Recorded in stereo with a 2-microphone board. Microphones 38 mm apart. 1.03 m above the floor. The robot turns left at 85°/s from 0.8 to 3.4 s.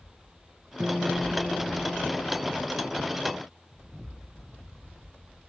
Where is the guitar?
150° right; by 2.5 s 60° left.